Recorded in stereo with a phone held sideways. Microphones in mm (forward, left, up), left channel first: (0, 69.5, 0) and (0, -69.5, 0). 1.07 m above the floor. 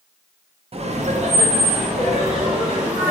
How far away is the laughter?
About 0.5 m.